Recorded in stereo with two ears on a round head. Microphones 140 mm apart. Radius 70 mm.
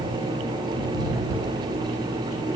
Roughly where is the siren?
I don't hear a siren.